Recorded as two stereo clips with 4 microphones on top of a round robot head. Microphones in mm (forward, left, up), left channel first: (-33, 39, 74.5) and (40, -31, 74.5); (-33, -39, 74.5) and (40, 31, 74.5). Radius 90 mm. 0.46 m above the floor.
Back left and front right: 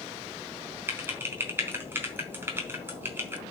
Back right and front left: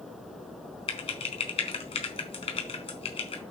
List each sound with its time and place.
0.9 s typing on a keyboard: 115° right, 2.5 m